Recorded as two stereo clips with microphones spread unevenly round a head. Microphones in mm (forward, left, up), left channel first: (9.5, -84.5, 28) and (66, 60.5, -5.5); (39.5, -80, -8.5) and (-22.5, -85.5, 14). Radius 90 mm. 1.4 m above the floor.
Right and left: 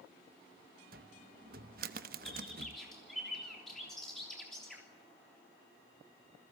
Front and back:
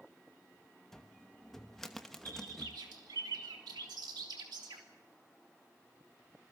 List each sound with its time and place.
0.9 s a cupboard door: 105° left, 0.8 m
2.2 s a bird: 160° left, 3 m